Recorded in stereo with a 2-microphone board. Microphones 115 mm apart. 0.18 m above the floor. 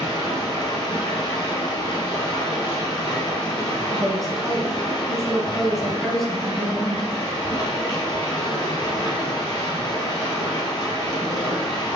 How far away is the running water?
About 2 m.